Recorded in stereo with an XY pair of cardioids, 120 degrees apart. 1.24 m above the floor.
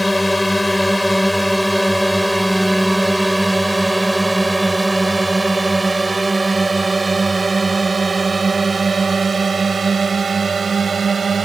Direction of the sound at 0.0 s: 5° left.